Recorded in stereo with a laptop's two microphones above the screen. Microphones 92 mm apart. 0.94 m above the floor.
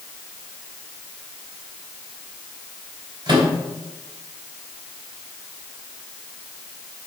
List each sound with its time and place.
3.3 s a microwave: 50° right (ahead or behind), 3.5 m